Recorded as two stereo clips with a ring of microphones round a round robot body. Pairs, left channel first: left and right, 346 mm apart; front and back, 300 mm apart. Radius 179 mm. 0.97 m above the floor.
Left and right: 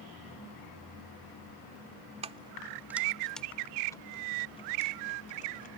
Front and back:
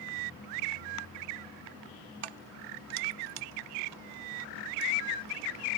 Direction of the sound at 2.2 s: 165° right.